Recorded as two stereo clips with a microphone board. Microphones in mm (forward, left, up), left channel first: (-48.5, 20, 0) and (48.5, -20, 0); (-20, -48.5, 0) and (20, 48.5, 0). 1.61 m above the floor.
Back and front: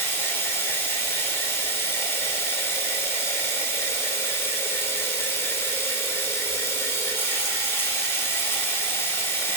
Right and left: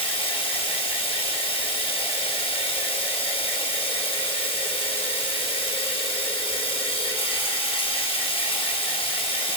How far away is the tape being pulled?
I don't hear tape being pulled.